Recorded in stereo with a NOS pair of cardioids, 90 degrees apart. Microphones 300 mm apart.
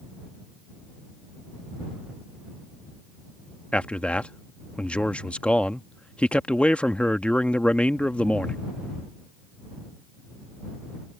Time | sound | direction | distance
3.7 | a man speaking | 5° left | ?